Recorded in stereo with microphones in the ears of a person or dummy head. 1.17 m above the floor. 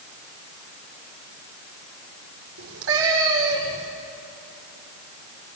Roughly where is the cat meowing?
Right.